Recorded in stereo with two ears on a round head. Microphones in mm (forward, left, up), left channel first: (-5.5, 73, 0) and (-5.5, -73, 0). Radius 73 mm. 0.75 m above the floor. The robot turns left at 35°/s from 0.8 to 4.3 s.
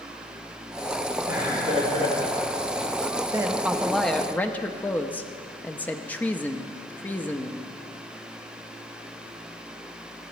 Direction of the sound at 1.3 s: 15° right (ahead or behind).